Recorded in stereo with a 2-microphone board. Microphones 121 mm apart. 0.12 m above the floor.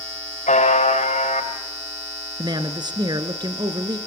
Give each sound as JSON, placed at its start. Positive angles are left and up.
{"t": 0.5, "sound": "a buzzer", "side_deg": 80, "distance_m": 8.0}
{"t": 2.4, "sound": "a man speaking", "side_deg": -35, "distance_m": 1.4}